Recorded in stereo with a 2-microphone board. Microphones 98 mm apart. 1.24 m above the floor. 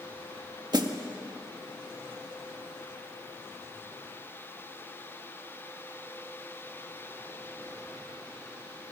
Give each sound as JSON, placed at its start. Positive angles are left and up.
{"t": 0.7, "sound": "a snare drum", "side_deg": -50, "distance_m": 1.6}